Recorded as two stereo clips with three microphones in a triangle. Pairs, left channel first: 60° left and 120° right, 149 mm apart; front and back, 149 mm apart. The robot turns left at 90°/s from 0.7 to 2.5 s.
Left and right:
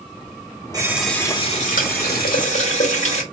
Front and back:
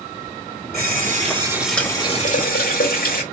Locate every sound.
0.7 s a running tap: 175° left, 1.8 m; by 3.2 s 15° left, 1.8 m